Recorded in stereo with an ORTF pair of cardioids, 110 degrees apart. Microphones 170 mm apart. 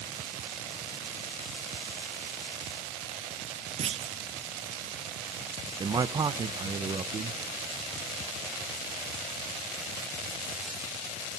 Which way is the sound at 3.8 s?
35° right.